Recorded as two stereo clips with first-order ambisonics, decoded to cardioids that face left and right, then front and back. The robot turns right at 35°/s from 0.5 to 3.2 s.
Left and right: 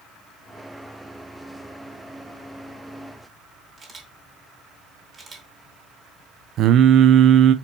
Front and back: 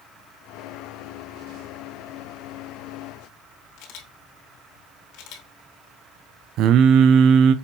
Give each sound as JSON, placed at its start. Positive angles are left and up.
{"t": 3.8, "sound": "a camera shutter", "azimuth_deg": -20, "distance_m": 2.5}
{"t": 6.6, "sound": "singing", "azimuth_deg": -140, "distance_m": 0.6}